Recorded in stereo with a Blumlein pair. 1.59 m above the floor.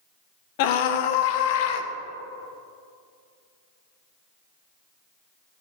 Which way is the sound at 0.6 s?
45° left.